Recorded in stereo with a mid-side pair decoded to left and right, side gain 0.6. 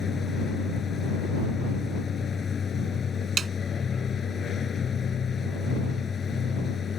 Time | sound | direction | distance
0.0 | a machine running | 35° left | ?
3.4 | a snare drum | 30° right | ?